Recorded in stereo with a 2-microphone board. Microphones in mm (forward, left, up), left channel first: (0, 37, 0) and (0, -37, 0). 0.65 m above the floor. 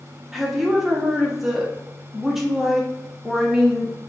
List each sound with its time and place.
0.3 s a woman speaking: 5° right (ahead or behind), 0.9 m